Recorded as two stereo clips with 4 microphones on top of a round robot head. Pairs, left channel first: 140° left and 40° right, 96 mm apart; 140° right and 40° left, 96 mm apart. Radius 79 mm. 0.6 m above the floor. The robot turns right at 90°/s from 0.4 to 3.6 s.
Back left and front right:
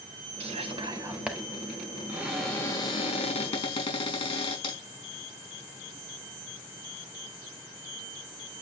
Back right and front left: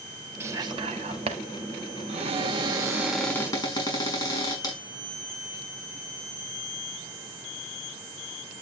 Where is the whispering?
30° right, 4 m; by 1.4 s 55° left, 4 m.